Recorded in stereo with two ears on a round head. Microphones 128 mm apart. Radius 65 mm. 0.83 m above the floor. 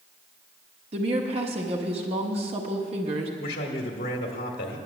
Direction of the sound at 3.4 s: 70° left (ahead or behind).